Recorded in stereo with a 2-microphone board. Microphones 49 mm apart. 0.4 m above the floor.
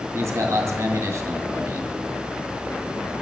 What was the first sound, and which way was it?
A man speaking, 65° right (ahead or behind).